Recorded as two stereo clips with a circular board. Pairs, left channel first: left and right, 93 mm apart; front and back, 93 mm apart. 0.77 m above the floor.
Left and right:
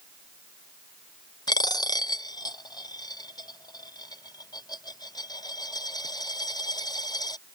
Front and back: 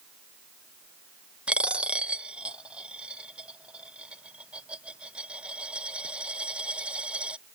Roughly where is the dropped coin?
Left.